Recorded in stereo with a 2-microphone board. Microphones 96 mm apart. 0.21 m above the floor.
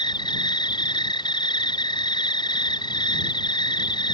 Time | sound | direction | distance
0.0 | an insect | 50° left (ahead or behind) | ?